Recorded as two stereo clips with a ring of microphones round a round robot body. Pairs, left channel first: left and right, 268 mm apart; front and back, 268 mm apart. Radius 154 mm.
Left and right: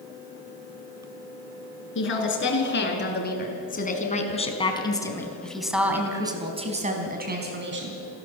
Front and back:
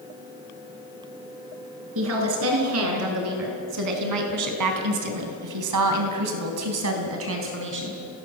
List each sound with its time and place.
1.9 s a woman speaking: 135° left, 6.5 m; by 8.0 s 130° right, 4 m